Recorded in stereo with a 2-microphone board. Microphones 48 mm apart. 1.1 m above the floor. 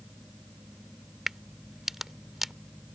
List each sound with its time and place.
1.3 s a crack: 5° right (ahead or behind)